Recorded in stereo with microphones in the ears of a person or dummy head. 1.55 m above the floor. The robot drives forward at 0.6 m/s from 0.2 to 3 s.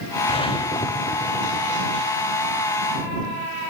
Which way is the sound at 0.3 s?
25° left (ahead or behind).